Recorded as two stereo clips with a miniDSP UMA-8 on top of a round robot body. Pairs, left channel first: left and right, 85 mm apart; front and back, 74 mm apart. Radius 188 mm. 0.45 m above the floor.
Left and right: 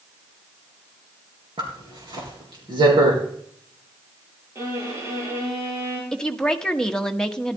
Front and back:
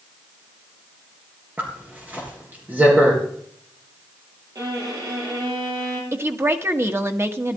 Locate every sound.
1.6 s a zipper: 115° right, 4 m
4.5 s a violin: 145° right, 5 m
6.1 s a woman speaking: 165° left, 1.4 m